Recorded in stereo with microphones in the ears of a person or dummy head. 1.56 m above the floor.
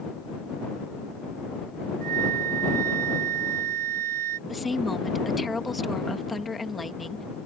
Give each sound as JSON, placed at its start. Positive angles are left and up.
{"t": 2.0, "sound": "a flute", "side_deg": -50}
{"t": 4.5, "sound": "a woman speaking", "side_deg": 0}